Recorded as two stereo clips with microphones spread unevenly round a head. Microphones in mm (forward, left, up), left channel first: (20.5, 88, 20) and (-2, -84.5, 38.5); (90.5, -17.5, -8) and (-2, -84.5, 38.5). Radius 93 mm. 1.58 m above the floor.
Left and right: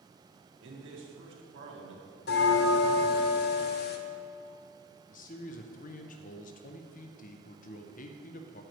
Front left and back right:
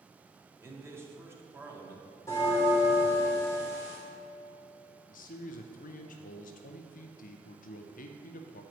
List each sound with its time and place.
0.6 s a man speaking: 80° right, 1.8 m
2.3 s a bell: 120° left, 0.5 m
5.1 s a man speaking: 40° left, 0.6 m